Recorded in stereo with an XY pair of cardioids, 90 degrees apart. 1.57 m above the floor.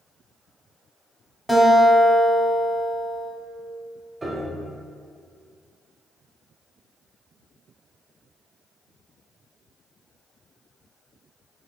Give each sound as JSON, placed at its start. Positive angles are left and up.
{"t": 1.5, "sound": "a guitar", "azimuth_deg": 10, "distance_m": 0.7}
{"t": 4.2, "sound": "a piano", "azimuth_deg": -25, "distance_m": 0.7}